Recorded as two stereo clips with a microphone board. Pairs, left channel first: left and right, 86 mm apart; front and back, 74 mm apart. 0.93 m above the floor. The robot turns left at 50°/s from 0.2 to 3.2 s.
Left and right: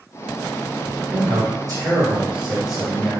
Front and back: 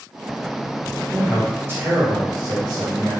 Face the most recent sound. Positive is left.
turn(degrees=160)